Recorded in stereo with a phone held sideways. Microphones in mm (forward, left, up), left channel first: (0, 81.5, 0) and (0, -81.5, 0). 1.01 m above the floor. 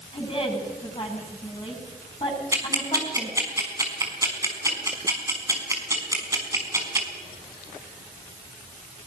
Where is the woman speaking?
35° left (ahead or behind), 8.5 m.